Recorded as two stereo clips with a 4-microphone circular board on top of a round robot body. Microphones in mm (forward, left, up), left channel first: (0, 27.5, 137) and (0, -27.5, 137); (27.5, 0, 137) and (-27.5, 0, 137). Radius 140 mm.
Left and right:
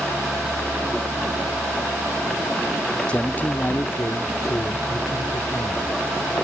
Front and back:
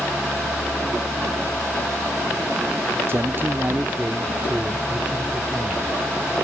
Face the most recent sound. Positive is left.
turn(degrees=105)